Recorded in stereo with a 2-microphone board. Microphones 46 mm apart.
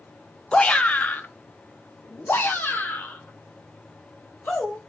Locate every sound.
0.5 s a shout: 20° left (ahead or behind), 1.0 m; by 4.8 s 45° left (ahead or behind), 3.5 m